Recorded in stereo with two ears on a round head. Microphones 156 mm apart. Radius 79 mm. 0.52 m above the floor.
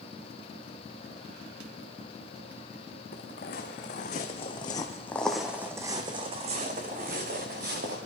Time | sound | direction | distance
3.1 | footsteps | 55° left (ahead or behind) | 2 m